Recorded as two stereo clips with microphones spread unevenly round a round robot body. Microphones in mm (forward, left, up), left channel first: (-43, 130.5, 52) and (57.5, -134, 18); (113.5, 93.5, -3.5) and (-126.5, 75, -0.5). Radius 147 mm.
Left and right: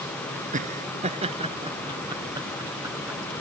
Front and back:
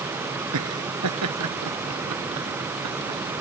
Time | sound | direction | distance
0.5 | laughter | 135° right | ?